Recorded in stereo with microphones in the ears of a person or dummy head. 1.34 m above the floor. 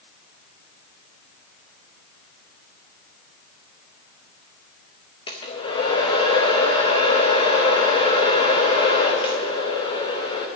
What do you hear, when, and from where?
5.3 s a hair dryer: 25° left (ahead or behind), 0.8 m